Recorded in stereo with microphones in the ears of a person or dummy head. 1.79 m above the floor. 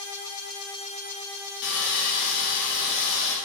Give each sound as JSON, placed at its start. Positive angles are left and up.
{"t": 1.6, "sound": "sawing", "side_deg": 55, "distance_m": 0.7}